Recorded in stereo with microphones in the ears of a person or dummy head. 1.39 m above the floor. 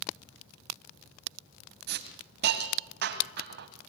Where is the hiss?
55° right (ahead or behind), 2 m.